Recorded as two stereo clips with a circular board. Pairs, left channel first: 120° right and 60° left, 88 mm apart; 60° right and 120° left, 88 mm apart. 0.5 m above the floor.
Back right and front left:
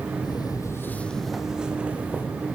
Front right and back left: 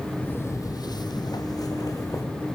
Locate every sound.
0.2 s footsteps: 125° right, 0.8 m; by 2.2 s 10° right, 1.7 m